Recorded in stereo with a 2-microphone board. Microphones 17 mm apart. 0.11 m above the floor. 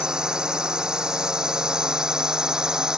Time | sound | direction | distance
0.0 | a drone | 55° right (ahead or behind) | ?